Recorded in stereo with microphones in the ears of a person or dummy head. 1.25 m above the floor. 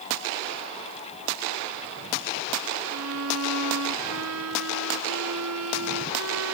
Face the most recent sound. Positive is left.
turn(degrees=-90)